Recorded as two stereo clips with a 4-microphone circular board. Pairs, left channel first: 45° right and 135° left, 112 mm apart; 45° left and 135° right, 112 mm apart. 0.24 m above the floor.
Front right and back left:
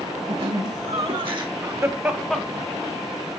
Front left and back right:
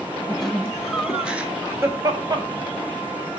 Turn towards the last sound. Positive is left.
turn(degrees=-90)